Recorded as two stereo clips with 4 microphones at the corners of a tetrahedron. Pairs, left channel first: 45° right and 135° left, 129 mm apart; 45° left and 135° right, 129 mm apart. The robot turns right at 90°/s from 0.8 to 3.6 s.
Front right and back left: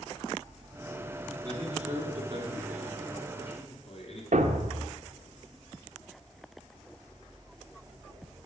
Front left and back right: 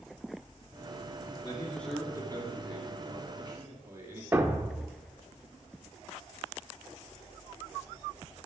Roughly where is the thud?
Behind left.